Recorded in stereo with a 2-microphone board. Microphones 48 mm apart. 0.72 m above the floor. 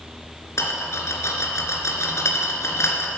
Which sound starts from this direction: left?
A rattle, at 0.6 s.